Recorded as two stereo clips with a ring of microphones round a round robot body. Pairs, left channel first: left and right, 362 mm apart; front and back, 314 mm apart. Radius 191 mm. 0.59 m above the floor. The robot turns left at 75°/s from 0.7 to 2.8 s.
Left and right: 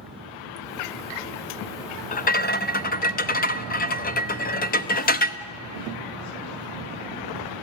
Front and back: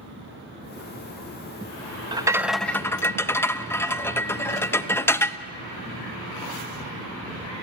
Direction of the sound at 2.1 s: 125° left.